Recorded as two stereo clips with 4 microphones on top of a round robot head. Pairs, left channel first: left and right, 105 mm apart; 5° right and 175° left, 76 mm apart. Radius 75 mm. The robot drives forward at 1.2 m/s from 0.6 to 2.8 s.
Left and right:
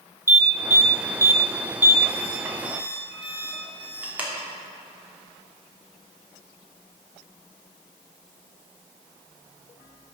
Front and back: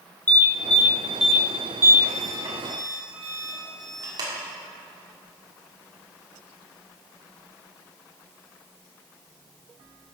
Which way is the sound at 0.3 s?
40° right.